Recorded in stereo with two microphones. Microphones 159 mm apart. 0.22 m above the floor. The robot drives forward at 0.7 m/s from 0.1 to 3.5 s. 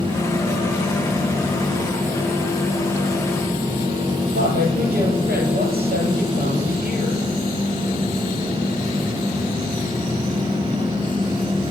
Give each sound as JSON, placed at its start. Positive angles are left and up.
{"t": 4.3, "sound": "a woman speaking", "side_deg": -75, "distance_m": 6.0}